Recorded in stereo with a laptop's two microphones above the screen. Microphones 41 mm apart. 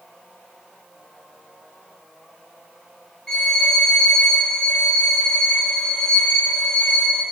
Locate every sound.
3.3 s a violin: 20° left (ahead or behind), 3 m